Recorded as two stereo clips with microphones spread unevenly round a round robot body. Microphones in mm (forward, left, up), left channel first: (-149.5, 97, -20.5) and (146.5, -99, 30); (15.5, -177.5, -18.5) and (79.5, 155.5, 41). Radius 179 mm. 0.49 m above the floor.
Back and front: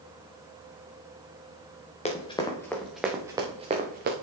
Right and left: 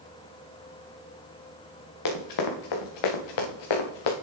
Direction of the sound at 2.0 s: 140° right.